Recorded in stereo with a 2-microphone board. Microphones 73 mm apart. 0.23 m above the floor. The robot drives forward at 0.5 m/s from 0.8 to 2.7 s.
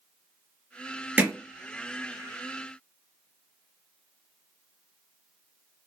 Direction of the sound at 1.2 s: 20° right (ahead or behind).